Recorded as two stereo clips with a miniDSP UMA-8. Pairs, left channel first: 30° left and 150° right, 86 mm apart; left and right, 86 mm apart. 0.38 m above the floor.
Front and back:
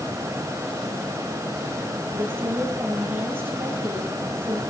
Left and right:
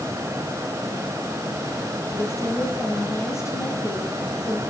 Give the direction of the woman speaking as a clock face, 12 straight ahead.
7 o'clock.